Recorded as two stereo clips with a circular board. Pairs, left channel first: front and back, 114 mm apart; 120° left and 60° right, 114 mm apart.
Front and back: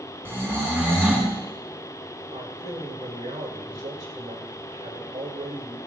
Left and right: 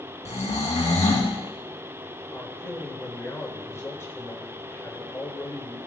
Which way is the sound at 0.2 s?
110° left.